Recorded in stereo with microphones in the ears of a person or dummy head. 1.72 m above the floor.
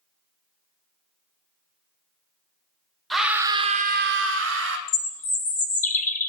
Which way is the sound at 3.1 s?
5° left (ahead or behind).